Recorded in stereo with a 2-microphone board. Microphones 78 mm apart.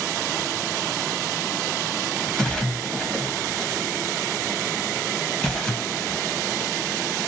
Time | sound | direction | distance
2.4 | a splash | 15° left (ahead or behind) | 0.8 m